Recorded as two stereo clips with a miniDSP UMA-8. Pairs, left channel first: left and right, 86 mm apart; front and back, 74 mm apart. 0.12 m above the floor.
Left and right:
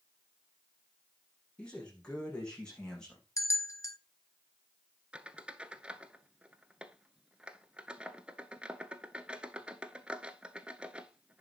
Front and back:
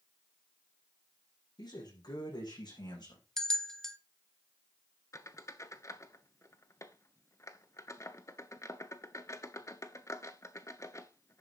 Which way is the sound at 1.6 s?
10° left.